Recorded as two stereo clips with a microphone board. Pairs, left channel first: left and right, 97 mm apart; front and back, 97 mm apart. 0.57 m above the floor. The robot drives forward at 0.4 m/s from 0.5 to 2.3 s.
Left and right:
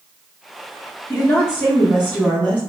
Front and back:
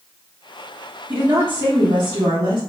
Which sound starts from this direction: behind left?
A woman speaking, at 1.1 s.